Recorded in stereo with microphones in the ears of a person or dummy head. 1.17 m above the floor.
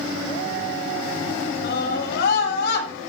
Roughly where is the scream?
Left.